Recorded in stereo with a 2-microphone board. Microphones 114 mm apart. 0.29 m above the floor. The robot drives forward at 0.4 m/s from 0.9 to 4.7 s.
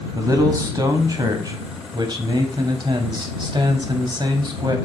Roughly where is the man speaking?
Right.